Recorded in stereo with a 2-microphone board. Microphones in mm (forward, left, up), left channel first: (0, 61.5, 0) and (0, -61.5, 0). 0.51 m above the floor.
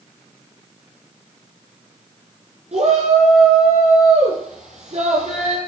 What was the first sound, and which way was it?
A shout, 60° right (ahead or behind).